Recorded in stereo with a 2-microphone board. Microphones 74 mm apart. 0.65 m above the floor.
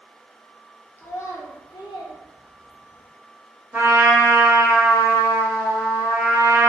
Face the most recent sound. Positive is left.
turn(degrees=-25)  # may be behind; listen again after turning